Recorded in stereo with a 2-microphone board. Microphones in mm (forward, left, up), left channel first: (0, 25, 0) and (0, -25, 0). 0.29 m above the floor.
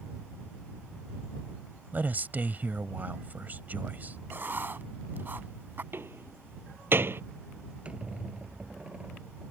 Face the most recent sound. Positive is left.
turn(degrees=-25)  # may be behind; listen again after turning